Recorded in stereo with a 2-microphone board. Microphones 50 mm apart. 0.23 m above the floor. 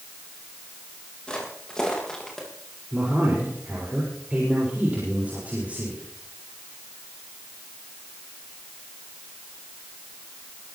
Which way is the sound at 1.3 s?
15° left (ahead or behind).